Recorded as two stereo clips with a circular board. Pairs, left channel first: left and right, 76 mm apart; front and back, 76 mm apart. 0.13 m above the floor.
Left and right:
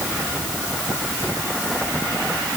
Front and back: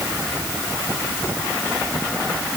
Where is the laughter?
No laughter in this recording.